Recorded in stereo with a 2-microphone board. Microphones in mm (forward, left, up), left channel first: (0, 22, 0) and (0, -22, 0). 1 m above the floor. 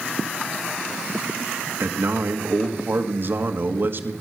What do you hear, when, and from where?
1.8 s a man speaking: 50° right (ahead or behind), 1.6 m